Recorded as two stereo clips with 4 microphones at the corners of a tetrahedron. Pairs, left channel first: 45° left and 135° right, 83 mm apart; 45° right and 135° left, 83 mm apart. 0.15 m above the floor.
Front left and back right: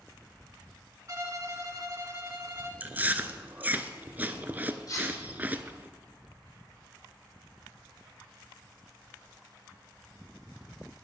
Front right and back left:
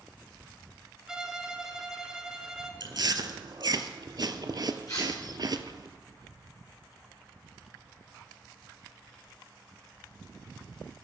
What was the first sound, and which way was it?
A violin, 145° right.